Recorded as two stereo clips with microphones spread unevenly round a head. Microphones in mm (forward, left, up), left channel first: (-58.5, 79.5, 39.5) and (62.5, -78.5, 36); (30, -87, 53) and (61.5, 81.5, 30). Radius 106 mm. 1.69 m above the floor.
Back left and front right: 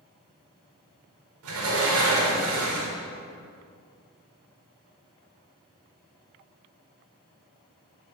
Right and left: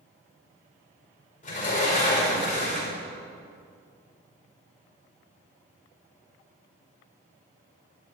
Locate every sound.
1.4 s a sliding door: 55° right, 5 m